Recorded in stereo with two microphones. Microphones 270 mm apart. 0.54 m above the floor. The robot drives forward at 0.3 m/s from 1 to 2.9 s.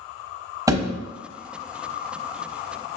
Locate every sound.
0.7 s a thud: 15° right (ahead or behind), 1.0 m